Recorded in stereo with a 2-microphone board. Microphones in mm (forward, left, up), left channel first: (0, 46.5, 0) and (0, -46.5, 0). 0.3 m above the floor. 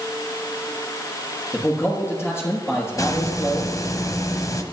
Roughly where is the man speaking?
Left.